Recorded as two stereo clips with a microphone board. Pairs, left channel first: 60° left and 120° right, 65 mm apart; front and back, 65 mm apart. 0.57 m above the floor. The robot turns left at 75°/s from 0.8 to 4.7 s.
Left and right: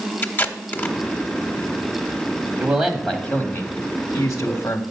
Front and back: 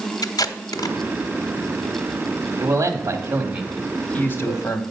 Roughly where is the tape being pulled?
Ahead.